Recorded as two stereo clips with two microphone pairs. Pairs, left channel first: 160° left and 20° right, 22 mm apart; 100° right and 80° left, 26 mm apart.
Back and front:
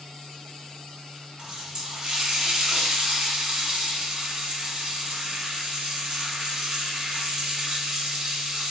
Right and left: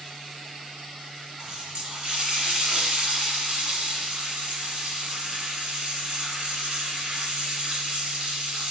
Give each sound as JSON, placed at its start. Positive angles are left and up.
{"t": 1.4, "sound": "a running tap", "azimuth_deg": 35, "distance_m": 1.4}